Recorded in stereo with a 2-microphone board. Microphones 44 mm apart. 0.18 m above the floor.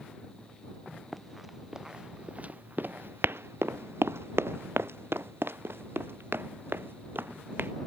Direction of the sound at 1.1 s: Centre (ahead or behind).